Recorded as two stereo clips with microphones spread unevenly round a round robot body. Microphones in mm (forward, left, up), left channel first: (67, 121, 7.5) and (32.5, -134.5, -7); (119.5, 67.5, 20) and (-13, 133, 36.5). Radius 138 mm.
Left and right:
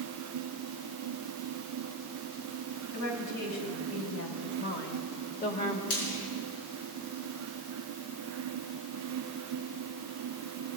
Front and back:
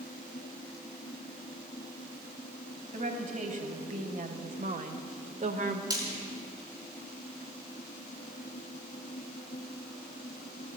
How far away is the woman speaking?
About 2.5 m.